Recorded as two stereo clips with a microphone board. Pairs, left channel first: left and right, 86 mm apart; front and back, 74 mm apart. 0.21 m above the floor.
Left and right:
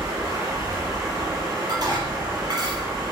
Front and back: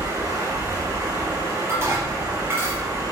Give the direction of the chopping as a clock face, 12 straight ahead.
No chopping in this recording.